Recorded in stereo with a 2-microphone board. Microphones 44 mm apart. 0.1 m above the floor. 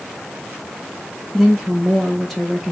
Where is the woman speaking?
10° left (ahead or behind), 5.5 m.